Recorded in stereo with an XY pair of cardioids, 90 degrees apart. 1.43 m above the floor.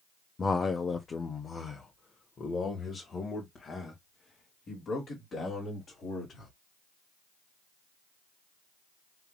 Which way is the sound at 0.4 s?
35° left.